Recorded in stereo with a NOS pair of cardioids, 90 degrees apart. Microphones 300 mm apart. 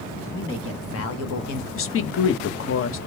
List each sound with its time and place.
0.3 s a man speaking: 40° left, 1.9 m; by 1.6 s 75° left, 0.9 m
1.7 s a woman speaking: 50° left, 0.8 m